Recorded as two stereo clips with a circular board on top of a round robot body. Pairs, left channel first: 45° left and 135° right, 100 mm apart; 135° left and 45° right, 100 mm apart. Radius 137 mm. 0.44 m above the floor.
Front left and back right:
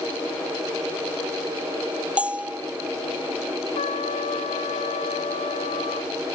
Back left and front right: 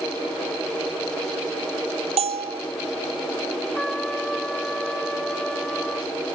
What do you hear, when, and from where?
2.2 s a bell: 55° right
3.8 s a trumpet: 50° left